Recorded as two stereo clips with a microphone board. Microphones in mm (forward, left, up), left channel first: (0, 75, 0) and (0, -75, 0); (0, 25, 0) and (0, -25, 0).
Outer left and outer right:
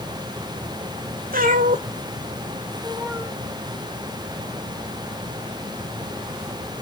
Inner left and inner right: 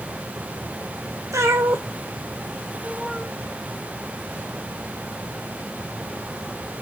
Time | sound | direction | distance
1.3 | a cat meowing | 75° right (ahead or behind) | 1.4 m